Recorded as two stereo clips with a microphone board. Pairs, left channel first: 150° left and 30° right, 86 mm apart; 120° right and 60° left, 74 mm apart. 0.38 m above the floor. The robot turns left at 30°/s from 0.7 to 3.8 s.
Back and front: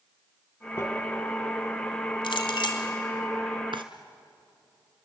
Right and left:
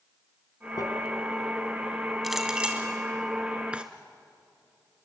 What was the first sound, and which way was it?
Crumpling, 150° right.